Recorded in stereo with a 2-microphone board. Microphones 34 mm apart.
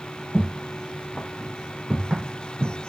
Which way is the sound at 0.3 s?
30° left (ahead or behind).